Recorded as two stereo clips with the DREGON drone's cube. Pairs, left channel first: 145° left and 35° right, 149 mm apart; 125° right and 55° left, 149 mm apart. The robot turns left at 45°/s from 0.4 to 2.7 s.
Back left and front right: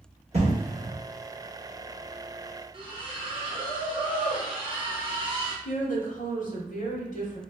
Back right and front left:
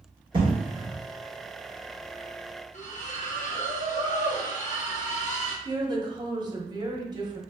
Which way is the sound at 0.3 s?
5° left.